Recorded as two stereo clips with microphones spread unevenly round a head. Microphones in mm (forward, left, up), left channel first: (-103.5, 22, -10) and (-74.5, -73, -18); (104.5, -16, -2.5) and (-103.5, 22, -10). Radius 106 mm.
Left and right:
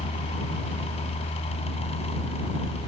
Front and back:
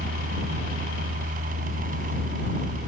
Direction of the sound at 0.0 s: 115° left.